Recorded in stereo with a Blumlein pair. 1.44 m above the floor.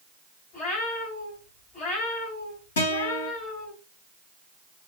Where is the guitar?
60° left, 3.5 m.